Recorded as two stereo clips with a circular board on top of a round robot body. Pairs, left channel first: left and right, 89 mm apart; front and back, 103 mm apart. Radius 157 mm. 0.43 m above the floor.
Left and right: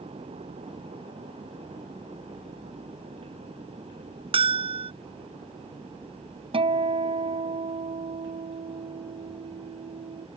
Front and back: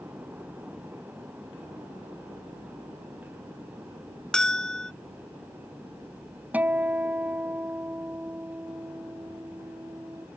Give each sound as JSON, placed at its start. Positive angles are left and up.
{"t": 4.3, "sound": "a bell", "azimuth_deg": -85}
{"t": 6.5, "sound": "a guitar", "azimuth_deg": -105}